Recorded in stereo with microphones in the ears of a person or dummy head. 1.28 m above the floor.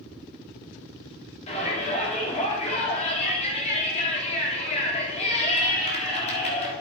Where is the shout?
40° left (ahead or behind), 3.5 m.